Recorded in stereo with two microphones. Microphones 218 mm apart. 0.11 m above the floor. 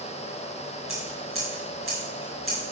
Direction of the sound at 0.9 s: 75° right (ahead or behind).